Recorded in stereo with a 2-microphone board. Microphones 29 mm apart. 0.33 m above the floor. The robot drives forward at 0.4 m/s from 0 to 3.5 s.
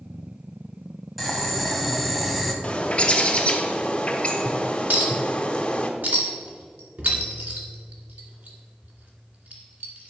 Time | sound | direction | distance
1.2 | boiling | 5° right (ahead or behind) | 1.8 m
2.6 | a bird | 40° left (ahead or behind) | 1.2 m
4.9 | a clink | 80° right | 2 m